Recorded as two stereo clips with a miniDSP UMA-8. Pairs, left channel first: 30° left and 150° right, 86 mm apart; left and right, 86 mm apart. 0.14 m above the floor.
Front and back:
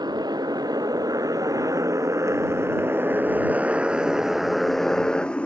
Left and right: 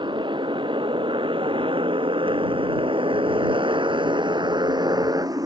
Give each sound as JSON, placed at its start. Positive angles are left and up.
{"t": 0.0, "sound": "a motorcycle", "azimuth_deg": -115}